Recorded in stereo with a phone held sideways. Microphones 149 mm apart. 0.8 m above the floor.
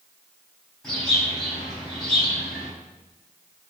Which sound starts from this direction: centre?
A bird, at 0.8 s.